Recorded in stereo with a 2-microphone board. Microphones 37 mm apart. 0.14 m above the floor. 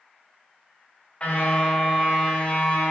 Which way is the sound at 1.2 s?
30° left (ahead or behind).